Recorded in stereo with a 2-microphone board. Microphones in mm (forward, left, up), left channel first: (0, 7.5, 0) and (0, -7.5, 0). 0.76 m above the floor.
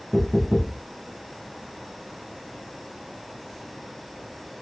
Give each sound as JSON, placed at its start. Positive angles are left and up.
{"t": 0.1, "sound": "knocking", "side_deg": 35, "distance_m": 2.0}